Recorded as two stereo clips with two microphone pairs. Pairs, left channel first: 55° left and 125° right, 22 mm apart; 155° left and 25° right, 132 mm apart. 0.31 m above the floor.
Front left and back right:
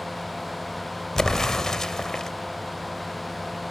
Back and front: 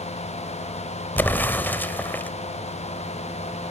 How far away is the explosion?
About 1.0 m.